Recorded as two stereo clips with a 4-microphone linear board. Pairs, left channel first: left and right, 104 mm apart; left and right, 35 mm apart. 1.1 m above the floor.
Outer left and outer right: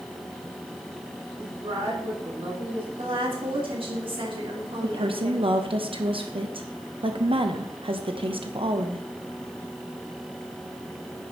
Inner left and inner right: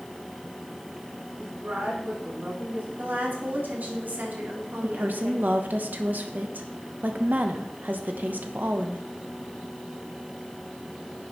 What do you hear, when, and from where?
1.4 s a woman speaking: 60° right (ahead or behind), 3 m
3.0 s a woman speaking: 60° right (ahead or behind), 2.5 m
4.8 s a woman speaking: 60° right (ahead or behind), 1.0 m